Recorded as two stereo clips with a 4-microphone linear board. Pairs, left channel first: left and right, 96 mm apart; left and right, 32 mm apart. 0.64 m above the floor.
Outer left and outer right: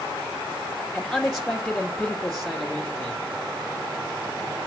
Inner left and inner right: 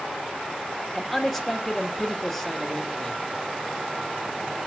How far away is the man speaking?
About 1.9 m.